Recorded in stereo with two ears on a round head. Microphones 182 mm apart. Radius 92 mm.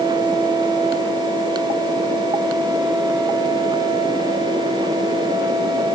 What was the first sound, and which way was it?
Only background noise.